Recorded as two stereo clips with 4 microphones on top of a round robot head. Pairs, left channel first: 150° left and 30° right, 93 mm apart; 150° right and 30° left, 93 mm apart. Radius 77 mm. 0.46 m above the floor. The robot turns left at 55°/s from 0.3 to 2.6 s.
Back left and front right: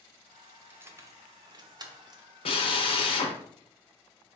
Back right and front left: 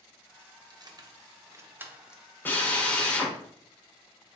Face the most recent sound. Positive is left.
turn(degrees=135)